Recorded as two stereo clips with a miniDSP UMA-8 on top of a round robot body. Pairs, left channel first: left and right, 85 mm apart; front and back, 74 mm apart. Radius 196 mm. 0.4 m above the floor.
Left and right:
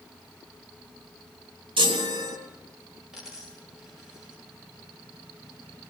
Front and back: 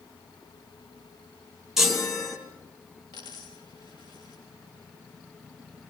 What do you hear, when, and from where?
1.8 s a chime: 95° right, 3.5 m
3.1 s a dropped coin: 5° right, 6 m